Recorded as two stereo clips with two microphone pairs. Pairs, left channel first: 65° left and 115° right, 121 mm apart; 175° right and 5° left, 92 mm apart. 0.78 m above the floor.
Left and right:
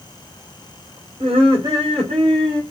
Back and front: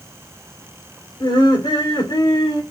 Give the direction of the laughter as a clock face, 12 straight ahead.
5 o'clock.